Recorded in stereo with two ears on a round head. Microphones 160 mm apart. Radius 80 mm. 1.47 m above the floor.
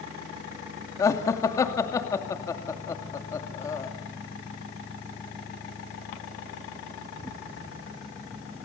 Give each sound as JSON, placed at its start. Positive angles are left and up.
{"t": 1.0, "sound": "laughter", "side_deg": 20, "distance_m": 2.5}